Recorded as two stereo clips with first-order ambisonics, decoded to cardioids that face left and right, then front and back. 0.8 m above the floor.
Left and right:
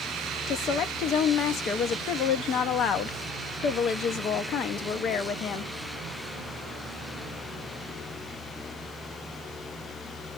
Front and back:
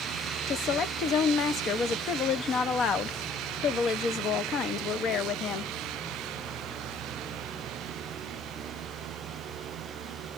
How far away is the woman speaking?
About 0.5 m.